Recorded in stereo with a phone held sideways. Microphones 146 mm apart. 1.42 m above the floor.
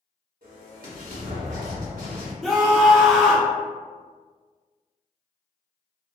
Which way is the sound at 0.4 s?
75° right (ahead or behind).